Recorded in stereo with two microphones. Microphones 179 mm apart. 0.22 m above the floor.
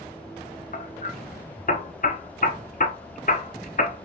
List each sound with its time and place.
0.7 s hammering: 50° left (ahead or behind), 1.0 m